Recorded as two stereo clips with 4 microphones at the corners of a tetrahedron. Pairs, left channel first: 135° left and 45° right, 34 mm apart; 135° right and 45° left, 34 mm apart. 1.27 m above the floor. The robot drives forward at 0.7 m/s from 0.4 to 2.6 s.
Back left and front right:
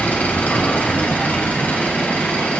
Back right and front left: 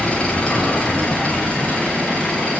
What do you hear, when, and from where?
0.0 s an engine running: 175° left, 3.5 m; by 2.6 s straight behind, 5 m